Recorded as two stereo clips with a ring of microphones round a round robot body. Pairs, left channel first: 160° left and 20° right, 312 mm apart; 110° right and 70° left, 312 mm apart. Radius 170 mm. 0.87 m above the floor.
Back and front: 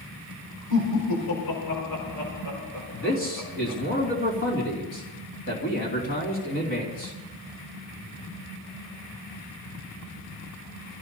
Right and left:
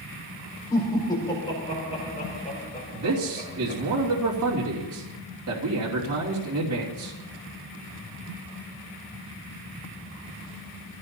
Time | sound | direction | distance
0.7 | laughter | 170° left | 5 m
2.9 | a man speaking | 105° left | 3 m